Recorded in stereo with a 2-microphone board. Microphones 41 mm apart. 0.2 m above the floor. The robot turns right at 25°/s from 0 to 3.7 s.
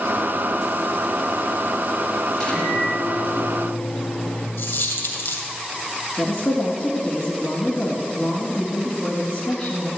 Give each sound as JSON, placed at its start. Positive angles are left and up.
{"t": 2.3, "sound": "a microwave", "azimuth_deg": 10, "distance_m": 4.5}
{"t": 4.6, "sound": "a dropped coin", "side_deg": 70, "distance_m": 2.5}
{"t": 6.2, "sound": "a woman speaking", "side_deg": 35, "distance_m": 1.9}